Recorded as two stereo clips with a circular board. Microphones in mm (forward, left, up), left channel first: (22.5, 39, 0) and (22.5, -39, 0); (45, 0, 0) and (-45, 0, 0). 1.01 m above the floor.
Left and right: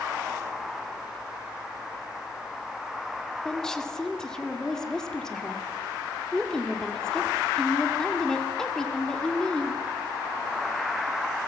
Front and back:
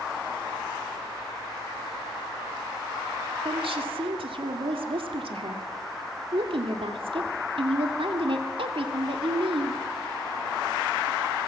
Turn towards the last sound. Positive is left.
turn(degrees=175)